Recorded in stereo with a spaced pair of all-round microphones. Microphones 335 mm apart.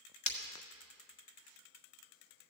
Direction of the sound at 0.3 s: 55° left (ahead or behind).